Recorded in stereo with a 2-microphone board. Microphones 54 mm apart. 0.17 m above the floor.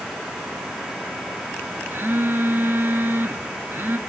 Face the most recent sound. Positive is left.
turn(degrees=-50)  # may be behind; listen again after turning